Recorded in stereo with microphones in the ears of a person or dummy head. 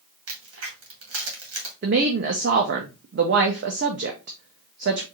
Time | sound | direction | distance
0.3 | a crack | 80° right | 1.8 m
1.8 | a woman speaking | 60° right (ahead or behind) | 0.7 m